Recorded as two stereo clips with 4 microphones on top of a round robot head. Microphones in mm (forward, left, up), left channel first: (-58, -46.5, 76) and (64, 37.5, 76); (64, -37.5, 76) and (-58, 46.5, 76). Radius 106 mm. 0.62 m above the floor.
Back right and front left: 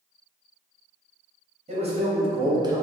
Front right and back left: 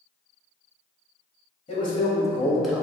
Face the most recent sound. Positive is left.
turn(degrees=75)